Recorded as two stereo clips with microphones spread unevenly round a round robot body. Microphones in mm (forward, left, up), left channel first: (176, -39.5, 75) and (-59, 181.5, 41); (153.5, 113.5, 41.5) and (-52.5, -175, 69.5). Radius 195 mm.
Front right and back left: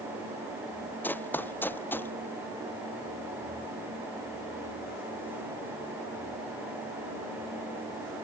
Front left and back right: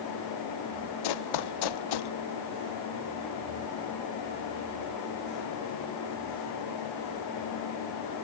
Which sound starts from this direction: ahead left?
Running footsteps, at 1.0 s.